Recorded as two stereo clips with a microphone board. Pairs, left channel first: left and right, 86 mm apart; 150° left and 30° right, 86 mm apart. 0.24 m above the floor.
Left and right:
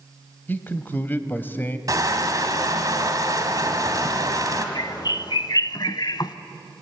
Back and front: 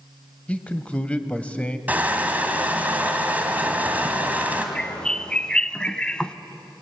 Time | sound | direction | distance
0.5 | a man speaking | 95° left | 0.9 m
1.9 | crushing | 90° right | 1.8 m
4.8 | a bird | 70° left | 0.5 m